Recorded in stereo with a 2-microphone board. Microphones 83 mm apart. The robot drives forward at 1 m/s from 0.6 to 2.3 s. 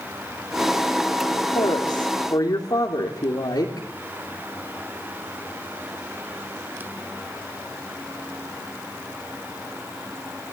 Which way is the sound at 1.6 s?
65° left (ahead or behind).